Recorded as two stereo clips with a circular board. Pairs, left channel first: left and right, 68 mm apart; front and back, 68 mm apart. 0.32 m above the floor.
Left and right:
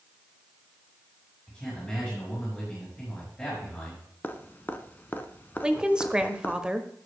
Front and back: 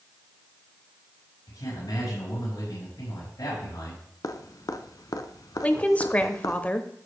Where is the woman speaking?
30° right, 0.9 m.